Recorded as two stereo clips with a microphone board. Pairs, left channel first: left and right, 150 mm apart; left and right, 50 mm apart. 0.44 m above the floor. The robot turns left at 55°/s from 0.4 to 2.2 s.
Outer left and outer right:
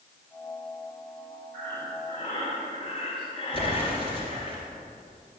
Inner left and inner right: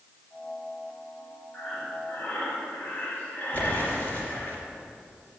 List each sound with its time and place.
1.5 s breathing: 170° left, 2.5 m; by 4.5 s 130° left, 2.5 m
3.5 s an explosion: 35° left (ahead or behind), 3 m